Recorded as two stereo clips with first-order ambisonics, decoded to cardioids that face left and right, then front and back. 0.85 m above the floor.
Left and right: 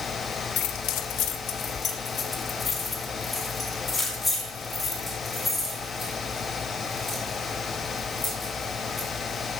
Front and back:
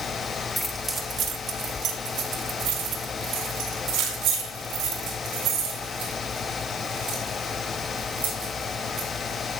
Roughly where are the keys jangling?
Left.